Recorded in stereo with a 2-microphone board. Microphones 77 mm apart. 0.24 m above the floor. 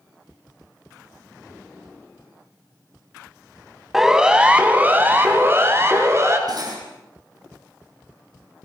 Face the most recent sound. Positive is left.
turn(degrees=-55)  # may be behind; listen again after turning